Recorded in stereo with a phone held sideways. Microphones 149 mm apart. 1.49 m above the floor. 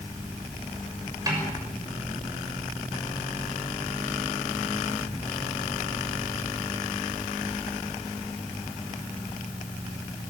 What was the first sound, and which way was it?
A snare drum, 25° right (ahead or behind).